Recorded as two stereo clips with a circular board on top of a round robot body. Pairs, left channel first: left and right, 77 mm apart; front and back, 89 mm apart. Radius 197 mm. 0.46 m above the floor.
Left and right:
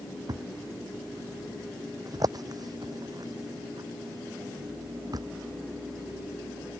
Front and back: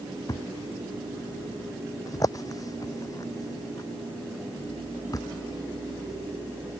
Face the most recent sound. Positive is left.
turn(degrees=-50)